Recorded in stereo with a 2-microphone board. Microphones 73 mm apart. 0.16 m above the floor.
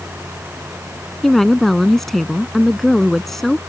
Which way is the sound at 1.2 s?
5° left (ahead or behind).